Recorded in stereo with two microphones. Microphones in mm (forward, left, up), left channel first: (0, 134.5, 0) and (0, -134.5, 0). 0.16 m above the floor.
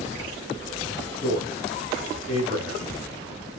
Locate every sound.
1.2 s a man speaking: 25° right (ahead or behind), 1.6 m